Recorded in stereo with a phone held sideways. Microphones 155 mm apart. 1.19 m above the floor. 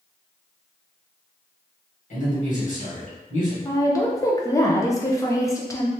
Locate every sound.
2.1 s a man speaking: 55° left (ahead or behind), 1.8 m
3.6 s a woman speaking: 20° left (ahead or behind), 0.7 m